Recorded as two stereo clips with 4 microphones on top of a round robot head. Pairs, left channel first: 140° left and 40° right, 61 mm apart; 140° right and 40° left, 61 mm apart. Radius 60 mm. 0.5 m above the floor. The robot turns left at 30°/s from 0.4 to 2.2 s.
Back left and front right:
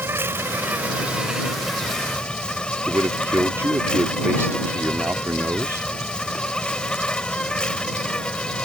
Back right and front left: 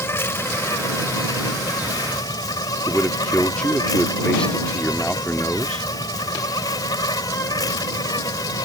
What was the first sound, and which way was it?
An insect, 90° right.